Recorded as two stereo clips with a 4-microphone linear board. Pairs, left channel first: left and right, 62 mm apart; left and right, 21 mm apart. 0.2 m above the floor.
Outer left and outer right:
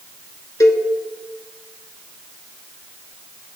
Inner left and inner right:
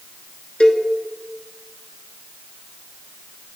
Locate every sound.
0.6 s a cowbell: 60° left (ahead or behind), 0.7 m